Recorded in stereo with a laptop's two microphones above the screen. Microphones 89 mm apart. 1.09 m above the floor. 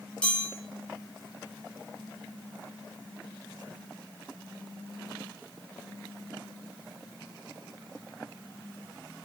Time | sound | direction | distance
0.2 | a chime | 10° left (ahead or behind) | 1.1 m